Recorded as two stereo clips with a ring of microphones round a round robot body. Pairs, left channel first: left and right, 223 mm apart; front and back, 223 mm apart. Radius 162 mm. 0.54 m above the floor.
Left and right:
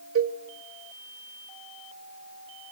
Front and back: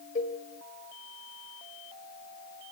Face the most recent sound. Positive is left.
turn(degrees=-70)